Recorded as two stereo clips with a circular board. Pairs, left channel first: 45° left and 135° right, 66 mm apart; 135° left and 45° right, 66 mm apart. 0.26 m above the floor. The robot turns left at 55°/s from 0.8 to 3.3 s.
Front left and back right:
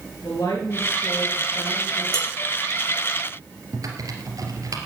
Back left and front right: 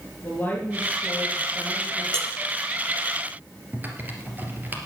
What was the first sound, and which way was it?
A woman speaking, 75° left.